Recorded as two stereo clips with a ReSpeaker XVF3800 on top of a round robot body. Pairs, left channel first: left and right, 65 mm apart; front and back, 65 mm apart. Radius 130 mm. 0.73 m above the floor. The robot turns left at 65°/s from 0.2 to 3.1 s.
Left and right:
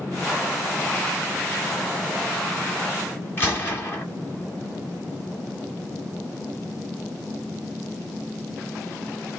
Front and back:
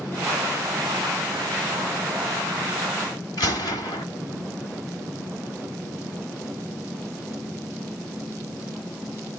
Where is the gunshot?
35° left, 1.0 m.